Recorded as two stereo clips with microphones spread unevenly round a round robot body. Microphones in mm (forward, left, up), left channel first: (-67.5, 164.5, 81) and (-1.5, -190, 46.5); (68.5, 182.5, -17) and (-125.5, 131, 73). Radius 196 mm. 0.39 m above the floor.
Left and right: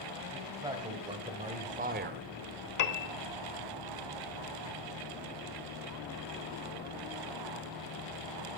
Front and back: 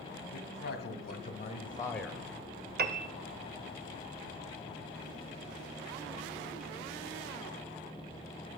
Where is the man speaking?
Straight ahead, 2.5 m; by 2.2 s 60° right, 0.9 m.